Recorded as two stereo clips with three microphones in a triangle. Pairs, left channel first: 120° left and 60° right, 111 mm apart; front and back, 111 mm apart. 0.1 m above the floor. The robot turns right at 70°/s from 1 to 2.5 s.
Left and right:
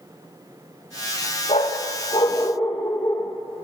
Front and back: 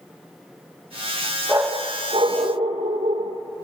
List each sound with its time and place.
1.5 s a dog barking: 100° left, 1.6 m; by 3.4 s 170° left, 1.6 m